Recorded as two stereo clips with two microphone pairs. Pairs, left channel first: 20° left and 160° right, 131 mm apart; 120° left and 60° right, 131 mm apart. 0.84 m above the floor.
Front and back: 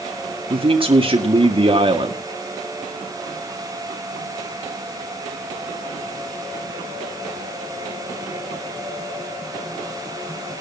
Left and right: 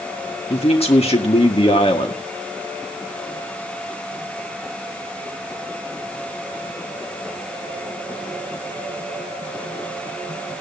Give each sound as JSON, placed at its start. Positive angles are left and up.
{"t": 0.5, "sound": "a man speaking", "azimuth_deg": 155, "distance_m": 2.0}